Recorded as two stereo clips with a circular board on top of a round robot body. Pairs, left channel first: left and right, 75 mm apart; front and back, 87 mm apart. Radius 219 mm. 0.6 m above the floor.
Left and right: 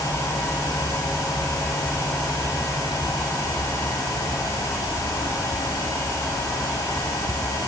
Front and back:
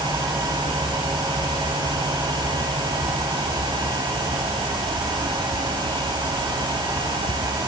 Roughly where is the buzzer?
I don't hear a buzzer.